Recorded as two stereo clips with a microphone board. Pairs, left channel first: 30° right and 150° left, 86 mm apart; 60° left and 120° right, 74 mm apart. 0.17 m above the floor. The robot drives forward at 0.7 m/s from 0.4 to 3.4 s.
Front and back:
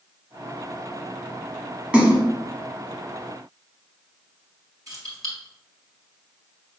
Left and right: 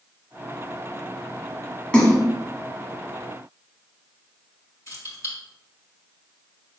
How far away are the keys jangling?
About 2 m.